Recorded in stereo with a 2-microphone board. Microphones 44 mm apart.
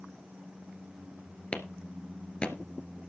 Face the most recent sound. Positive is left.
turn(degrees=25)  # may be behind; listen again after turning